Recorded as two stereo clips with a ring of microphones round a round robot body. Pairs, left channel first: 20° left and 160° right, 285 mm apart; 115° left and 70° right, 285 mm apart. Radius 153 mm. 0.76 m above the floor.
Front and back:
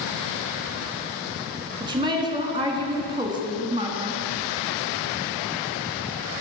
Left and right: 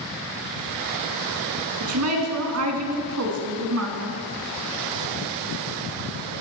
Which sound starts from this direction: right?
A woman speaking, at 1.8 s.